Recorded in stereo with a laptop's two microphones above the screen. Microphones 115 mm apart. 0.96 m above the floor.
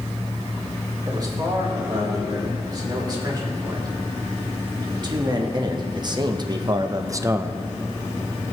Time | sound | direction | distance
1.1 | a man speaking | 35° right (ahead or behind) | 4.5 m